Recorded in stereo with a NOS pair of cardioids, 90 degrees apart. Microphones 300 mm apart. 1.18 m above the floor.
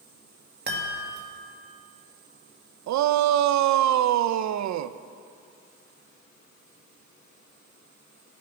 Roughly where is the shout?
Ahead right.